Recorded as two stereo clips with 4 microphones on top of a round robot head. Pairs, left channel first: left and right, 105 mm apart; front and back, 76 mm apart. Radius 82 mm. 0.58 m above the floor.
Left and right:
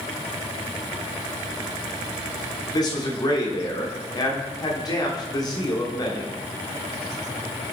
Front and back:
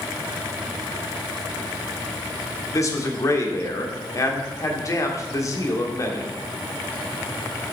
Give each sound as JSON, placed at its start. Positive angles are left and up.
{"t": 2.7, "sound": "a man speaking", "azimuth_deg": 40, "distance_m": 1.4}